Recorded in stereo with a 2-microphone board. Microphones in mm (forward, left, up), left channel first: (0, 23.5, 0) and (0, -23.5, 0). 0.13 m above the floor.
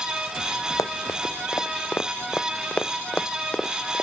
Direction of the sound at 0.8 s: 80° left.